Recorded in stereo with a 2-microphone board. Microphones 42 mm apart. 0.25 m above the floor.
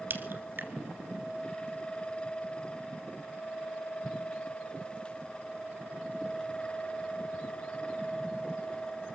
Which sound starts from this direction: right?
A crack, at 0.1 s.